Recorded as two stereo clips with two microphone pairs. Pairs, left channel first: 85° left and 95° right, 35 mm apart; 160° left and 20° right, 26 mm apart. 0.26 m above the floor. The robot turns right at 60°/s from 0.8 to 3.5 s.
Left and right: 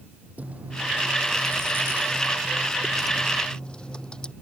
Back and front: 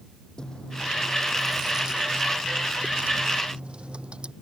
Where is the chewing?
140° right; by 4.3 s 20° left.